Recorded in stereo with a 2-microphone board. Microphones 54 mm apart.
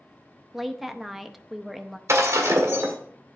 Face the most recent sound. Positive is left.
turn(degrees=-65)  # may be behind; listen again after turning